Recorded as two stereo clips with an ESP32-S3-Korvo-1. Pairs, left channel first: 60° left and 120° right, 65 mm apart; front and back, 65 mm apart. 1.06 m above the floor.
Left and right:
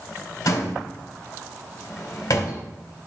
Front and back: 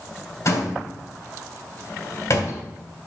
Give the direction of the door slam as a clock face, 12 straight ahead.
11 o'clock.